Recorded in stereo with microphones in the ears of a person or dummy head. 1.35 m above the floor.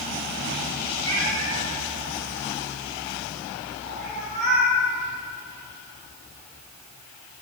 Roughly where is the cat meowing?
Right.